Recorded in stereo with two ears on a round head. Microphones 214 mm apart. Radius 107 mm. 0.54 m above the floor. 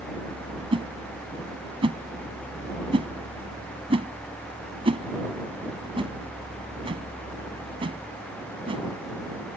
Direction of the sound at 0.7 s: 25° right (ahead or behind).